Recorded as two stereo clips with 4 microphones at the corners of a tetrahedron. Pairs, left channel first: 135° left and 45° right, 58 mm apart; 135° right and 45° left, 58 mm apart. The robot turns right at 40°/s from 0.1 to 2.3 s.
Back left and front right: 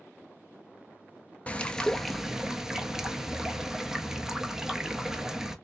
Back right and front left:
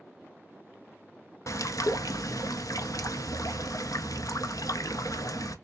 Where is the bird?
160° right, 0.5 m; by 5.5 s 125° right, 0.5 m.